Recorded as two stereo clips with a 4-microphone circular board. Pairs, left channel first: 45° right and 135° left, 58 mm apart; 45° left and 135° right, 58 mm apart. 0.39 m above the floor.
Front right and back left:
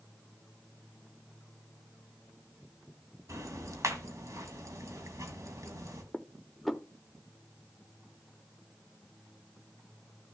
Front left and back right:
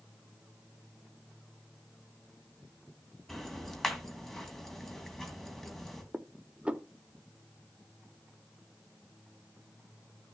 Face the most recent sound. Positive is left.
turn(degrees=-125)